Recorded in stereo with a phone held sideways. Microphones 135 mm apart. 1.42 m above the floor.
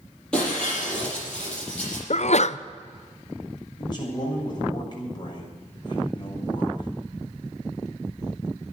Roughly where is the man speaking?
Left.